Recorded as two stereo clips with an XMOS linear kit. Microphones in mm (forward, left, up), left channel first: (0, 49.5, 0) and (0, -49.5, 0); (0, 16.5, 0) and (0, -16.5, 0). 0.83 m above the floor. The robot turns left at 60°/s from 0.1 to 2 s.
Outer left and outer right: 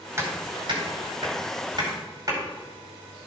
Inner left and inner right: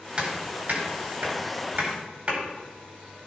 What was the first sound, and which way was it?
Hammering, 30° right (ahead or behind).